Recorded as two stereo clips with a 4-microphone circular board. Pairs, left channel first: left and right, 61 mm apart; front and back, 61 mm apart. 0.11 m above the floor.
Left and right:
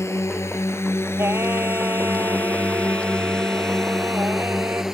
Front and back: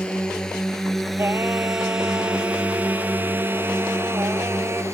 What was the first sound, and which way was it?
A drone, 70° left.